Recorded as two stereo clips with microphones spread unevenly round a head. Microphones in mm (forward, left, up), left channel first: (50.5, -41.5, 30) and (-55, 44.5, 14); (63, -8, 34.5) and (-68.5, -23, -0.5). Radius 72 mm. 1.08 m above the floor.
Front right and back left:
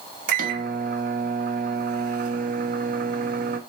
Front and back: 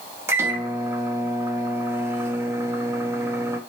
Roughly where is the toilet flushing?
I don't hear a toilet flushing.